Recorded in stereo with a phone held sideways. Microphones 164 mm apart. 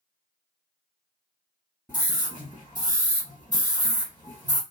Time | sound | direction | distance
1.9 | a scream | 10° right (ahead or behind) | 1.2 m